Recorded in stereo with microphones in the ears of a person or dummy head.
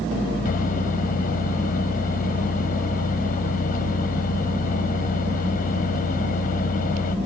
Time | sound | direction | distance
0.5 | a microwave | 50° left (ahead or behind) | ?